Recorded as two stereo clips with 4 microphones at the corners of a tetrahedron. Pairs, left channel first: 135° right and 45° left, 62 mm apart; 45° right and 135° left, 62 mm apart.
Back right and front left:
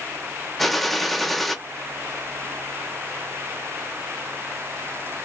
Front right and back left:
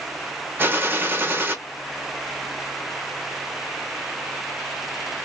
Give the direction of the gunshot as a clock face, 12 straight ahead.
7 o'clock.